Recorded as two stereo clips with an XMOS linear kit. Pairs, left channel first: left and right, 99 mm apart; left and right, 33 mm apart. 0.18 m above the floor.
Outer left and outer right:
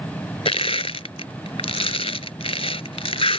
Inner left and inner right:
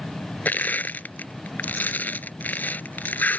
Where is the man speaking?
I don't hear a man speaking.